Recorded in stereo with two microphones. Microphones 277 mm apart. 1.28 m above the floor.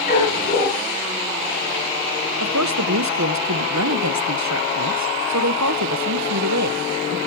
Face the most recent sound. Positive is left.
turn(degrees=-80)